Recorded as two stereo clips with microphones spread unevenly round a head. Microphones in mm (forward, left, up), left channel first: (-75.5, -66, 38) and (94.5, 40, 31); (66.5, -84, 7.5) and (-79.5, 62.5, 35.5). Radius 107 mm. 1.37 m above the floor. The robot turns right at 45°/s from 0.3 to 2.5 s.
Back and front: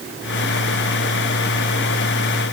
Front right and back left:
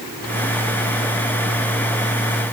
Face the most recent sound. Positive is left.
No sound to turn to.